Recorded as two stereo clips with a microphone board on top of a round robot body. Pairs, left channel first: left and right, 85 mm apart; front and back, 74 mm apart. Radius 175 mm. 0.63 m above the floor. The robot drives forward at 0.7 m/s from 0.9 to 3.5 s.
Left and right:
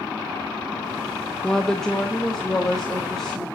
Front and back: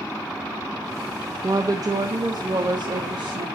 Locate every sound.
1.4 s a woman speaking: 170° left, 1.0 m; by 3.5 s 175° left, 2 m